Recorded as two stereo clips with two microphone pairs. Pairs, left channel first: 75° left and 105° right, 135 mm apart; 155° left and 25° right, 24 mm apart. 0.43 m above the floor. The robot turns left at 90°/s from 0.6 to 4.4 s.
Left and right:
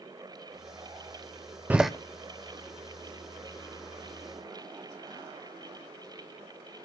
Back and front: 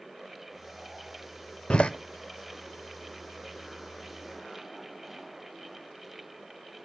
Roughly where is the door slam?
Behind.